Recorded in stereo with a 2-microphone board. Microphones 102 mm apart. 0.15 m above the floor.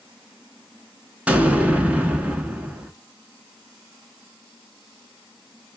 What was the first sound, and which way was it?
An explosion, 15° right (ahead or behind).